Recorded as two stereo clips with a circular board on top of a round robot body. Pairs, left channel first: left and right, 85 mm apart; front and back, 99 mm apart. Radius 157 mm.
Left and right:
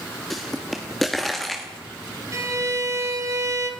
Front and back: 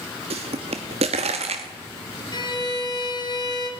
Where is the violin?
40° right, 2 m.